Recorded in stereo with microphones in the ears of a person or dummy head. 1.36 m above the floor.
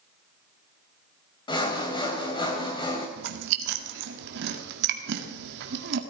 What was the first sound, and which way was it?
Sawing, 25° left (ahead or behind).